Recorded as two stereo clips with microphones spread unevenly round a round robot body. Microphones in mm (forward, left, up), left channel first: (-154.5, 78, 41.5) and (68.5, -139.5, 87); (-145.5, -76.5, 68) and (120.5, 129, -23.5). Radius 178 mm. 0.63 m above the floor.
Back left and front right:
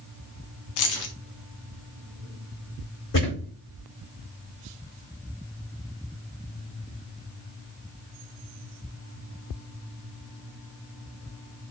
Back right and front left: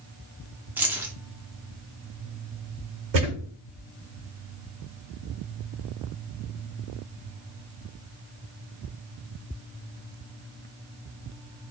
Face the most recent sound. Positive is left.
turn(degrees=80)